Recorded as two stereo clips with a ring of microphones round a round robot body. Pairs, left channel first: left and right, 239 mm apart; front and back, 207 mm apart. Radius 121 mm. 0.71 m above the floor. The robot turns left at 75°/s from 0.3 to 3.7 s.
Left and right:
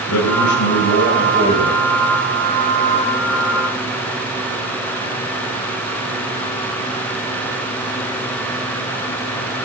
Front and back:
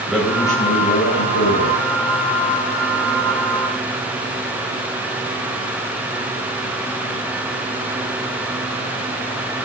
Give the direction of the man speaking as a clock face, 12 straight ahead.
9 o'clock.